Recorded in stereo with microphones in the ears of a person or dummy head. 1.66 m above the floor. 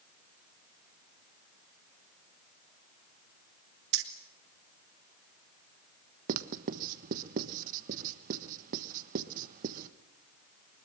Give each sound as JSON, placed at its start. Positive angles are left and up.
{"t": 3.9, "sound": "keys jangling", "side_deg": -70, "distance_m": 1.9}
{"t": 6.3, "sound": "writing", "side_deg": -50, "distance_m": 1.2}